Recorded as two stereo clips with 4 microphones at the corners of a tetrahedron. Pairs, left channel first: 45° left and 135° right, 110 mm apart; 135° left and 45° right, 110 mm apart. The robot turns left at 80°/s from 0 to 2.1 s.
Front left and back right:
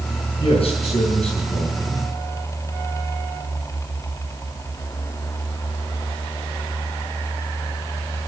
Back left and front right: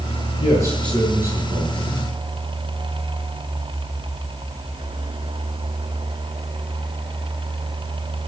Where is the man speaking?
90° left, 6 m; by 2.0 s 40° right, 6 m.